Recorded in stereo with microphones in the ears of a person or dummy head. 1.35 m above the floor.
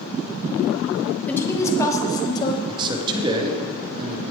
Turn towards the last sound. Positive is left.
turn(degrees=-25)  # may be behind; listen again after turning